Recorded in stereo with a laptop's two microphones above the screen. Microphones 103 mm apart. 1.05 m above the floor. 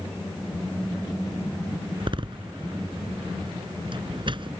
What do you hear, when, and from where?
2.0 s a door slam: 50° right (ahead or behind)